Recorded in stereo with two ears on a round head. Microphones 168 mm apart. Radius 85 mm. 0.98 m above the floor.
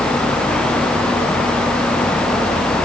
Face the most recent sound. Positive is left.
No sound to turn to.